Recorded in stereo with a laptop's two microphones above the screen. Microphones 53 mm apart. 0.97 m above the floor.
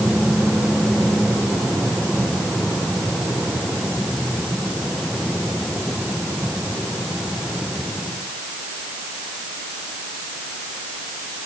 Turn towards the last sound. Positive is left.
No sound to turn to.